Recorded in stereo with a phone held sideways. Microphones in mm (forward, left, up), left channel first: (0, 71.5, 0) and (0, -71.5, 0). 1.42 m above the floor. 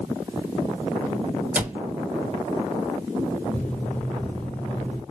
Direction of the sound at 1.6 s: 15° right (ahead or behind).